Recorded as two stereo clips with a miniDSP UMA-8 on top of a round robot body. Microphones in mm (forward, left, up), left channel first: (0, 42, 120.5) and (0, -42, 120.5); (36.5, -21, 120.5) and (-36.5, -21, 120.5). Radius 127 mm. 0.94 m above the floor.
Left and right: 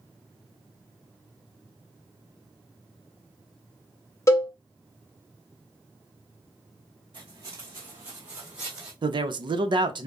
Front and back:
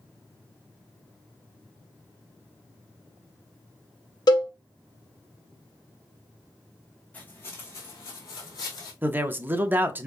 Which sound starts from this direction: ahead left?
A cowbell, at 4.3 s.